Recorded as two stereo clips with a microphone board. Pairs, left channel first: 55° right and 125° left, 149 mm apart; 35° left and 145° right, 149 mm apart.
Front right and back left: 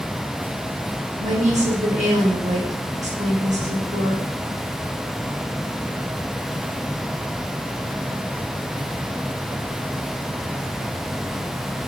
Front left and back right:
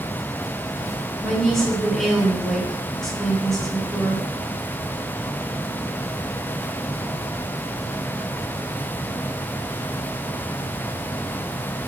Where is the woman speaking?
120° left, 1.2 m.